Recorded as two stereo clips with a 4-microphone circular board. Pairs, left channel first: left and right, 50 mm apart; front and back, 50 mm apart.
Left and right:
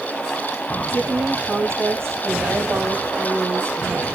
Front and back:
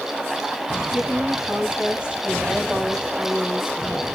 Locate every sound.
0.9 s a woman speaking: 115° right, 2.5 m